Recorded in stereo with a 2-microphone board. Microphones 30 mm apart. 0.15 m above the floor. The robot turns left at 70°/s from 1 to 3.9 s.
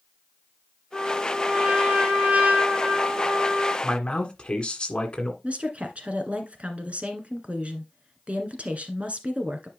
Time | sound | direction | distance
0.9 | a trumpet | 20° left | 4 m
3.8 | a man speaking | 30° left (ahead or behind) | 1.7 m
5.4 | a woman speaking | 45° right (ahead or behind) | 1.6 m